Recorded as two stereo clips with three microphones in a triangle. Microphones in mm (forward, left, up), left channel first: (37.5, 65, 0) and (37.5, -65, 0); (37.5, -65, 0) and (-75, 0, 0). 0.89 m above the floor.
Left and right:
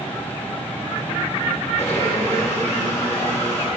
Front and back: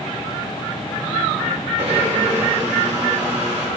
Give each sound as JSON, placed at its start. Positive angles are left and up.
{"t": 1.8, "sound": "a blender", "azimuth_deg": 155, "distance_m": 5.5}